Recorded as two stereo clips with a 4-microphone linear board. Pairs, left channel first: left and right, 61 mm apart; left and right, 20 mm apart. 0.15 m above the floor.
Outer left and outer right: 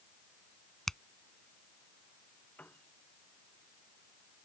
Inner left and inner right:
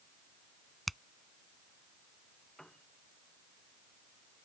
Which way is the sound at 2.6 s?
25° left (ahead or behind).